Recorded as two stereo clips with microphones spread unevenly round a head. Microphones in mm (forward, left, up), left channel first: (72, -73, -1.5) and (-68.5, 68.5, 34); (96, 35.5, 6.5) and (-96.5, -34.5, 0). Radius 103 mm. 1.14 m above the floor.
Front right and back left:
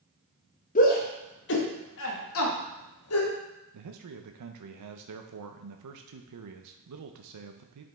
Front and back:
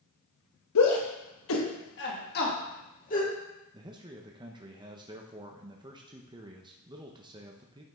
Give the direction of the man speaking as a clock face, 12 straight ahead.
8 o'clock.